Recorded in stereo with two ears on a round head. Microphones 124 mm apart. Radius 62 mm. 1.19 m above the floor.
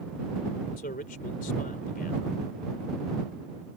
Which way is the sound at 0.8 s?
70° left (ahead or behind).